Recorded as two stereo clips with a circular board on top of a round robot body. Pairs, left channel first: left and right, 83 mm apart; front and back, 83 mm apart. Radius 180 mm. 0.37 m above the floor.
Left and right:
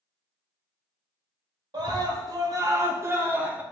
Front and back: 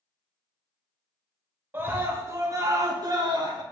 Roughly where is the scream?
Behind right.